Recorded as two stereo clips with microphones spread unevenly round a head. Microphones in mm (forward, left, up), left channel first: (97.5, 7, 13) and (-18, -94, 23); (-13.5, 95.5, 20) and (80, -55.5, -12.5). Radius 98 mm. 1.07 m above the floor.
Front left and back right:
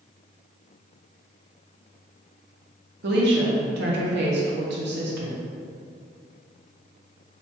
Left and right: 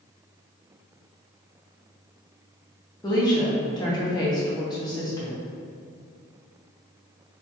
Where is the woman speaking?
165° right, 0.8 m.